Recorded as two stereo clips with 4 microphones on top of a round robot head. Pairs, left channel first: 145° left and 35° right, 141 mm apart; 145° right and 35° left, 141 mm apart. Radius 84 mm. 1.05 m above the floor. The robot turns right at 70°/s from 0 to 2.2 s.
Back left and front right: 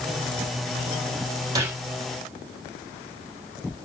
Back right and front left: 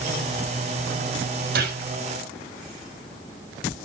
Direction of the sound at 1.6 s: 30° left.